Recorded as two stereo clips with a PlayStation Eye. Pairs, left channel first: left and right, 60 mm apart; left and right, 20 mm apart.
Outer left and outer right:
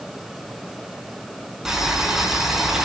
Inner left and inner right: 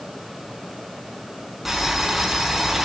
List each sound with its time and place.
1.6 s boiling: 5° right (ahead or behind), 6 m